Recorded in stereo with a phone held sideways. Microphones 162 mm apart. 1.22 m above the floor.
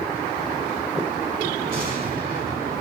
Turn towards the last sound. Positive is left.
turn(degrees=-60)  # may be behind; listen again after turning